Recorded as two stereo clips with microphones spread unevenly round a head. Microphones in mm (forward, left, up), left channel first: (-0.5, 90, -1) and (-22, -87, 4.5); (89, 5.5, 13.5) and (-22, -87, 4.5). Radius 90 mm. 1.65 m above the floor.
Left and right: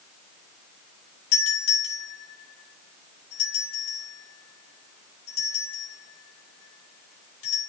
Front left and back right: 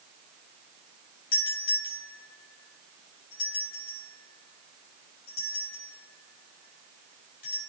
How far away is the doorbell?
About 6.5 m.